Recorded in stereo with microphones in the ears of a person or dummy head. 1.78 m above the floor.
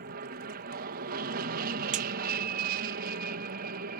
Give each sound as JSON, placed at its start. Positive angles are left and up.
{"t": 0.0, "sound": "an aircraft", "side_deg": -45}
{"t": 1.9, "sound": "a crack", "side_deg": -40}